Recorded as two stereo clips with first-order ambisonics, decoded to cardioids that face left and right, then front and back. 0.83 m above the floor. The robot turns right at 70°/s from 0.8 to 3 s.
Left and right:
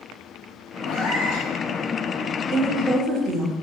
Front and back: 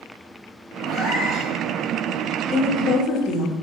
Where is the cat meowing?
55° left, 1.2 m; by 1.5 s 100° left, 1.2 m.